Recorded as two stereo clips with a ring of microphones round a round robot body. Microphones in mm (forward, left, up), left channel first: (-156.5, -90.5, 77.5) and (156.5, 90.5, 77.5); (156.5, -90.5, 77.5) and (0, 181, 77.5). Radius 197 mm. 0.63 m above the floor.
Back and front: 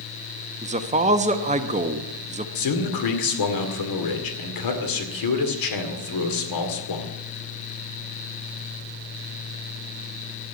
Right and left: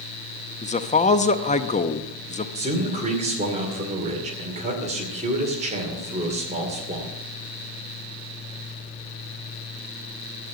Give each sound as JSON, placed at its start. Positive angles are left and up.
{"t": 0.6, "sound": "a man speaking", "azimuth_deg": -20, "distance_m": 0.9}
{"t": 2.5, "sound": "a man speaking", "azimuth_deg": -170, "distance_m": 2.0}